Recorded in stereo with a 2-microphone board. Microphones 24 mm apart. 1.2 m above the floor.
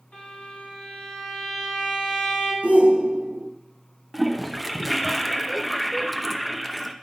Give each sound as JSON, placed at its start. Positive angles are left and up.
{"t": 0.1, "sound": "a violin", "side_deg": 80, "distance_m": 4.0}
{"t": 2.6, "sound": "a shout", "side_deg": -85, "distance_m": 0.7}
{"t": 4.1, "sound": "a toilet flushing", "side_deg": -5, "distance_m": 0.6}